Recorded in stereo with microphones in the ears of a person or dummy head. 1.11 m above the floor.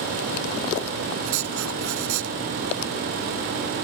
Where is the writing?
75° right (ahead or behind).